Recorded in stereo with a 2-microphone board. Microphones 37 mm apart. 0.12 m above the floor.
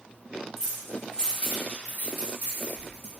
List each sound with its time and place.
0.6 s keys jangling: 10° left (ahead or behind), 1.6 m; by 3.1 s 50° left (ahead or behind), 1.5 m